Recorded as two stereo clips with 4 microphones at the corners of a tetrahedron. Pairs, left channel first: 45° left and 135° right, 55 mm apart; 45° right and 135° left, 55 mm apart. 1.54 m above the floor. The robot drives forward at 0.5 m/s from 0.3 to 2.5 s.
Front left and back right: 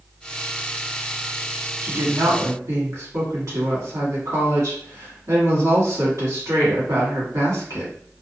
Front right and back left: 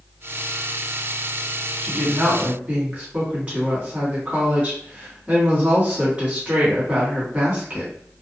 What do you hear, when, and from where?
1.8 s a woman speaking: 150° right, 1.3 m; by 7.9 s 160° right, 1.6 m